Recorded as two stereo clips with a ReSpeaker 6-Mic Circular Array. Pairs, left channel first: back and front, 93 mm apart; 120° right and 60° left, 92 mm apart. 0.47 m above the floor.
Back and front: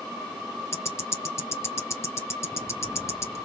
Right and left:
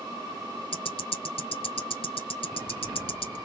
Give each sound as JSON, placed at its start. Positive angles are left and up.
{"t": 0.7, "sound": "ticking", "azimuth_deg": -120, "distance_m": 1.2}